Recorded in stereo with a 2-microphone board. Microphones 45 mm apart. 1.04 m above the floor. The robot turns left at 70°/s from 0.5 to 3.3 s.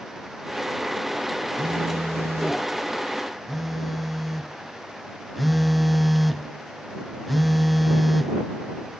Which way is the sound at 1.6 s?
60° right.